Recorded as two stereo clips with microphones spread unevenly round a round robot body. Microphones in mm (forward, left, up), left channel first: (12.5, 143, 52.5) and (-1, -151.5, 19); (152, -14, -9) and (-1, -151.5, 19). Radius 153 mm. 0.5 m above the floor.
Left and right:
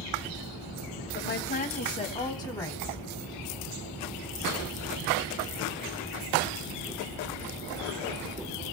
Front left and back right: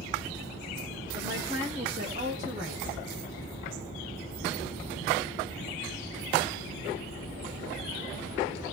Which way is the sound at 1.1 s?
140° left.